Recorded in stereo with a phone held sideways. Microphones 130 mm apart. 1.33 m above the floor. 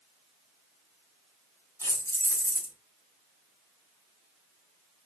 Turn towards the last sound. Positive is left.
turn(degrees=20)  # may be behind; listen again after turning